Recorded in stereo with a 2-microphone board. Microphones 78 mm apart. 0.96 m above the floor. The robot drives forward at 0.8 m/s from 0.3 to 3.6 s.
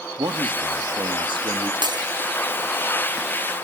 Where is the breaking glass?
65° right (ahead or behind), 2.5 m.